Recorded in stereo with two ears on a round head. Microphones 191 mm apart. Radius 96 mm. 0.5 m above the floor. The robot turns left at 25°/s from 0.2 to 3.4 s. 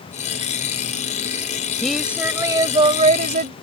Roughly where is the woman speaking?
Ahead.